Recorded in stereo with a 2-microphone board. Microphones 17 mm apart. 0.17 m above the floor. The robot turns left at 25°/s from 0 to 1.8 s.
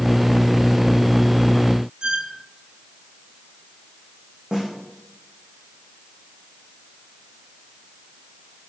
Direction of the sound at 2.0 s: 70° right (ahead or behind).